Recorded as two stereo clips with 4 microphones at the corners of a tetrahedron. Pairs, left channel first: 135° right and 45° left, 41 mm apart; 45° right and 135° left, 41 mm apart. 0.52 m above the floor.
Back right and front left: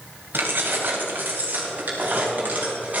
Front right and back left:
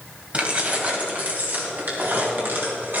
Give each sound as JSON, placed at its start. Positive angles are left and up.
{"t": 0.3, "sound": "keys jangling", "azimuth_deg": 75, "distance_m": 2.0}